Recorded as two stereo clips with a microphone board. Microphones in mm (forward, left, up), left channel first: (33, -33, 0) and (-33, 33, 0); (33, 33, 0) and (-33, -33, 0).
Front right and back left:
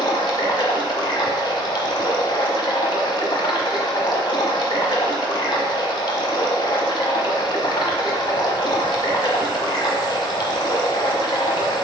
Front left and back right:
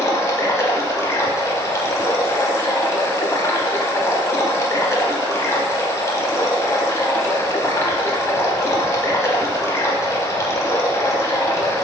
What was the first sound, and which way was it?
Running water, 15° right.